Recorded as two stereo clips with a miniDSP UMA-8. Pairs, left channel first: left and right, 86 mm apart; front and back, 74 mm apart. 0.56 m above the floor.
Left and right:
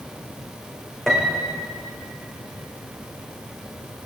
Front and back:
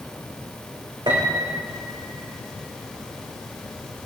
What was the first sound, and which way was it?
A piano, 175° left.